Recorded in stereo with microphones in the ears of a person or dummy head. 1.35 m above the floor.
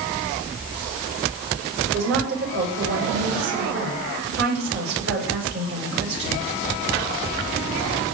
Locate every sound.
1.8 s a woman speaking: 70° right (ahead or behind), 8 m